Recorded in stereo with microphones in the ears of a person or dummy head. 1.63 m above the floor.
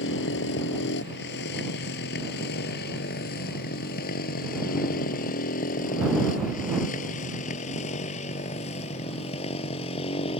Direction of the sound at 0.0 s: 65° left (ahead or behind).